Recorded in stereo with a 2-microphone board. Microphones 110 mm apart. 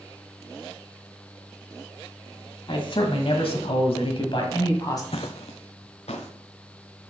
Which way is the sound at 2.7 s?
50° left (ahead or behind).